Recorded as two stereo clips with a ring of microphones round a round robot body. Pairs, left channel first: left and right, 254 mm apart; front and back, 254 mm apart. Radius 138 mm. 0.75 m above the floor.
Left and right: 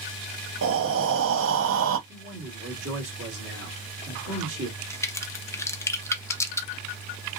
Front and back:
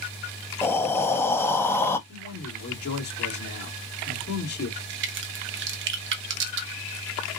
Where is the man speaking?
45° right, 2.5 m.